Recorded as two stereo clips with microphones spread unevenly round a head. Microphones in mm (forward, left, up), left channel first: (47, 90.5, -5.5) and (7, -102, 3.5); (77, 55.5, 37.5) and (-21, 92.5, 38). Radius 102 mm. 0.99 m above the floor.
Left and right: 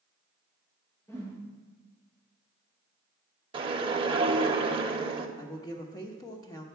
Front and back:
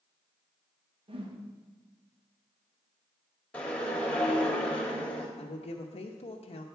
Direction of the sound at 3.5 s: 90° right.